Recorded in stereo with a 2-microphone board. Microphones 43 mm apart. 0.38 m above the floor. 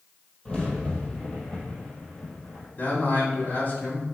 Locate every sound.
0.5 s a crack: 25° left (ahead or behind), 2.5 m
2.8 s a man speaking: 45° left (ahead or behind), 2.5 m